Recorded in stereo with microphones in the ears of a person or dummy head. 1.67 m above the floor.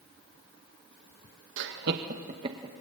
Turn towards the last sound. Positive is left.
turn(degrees=-20)  # may be behind; listen again after turning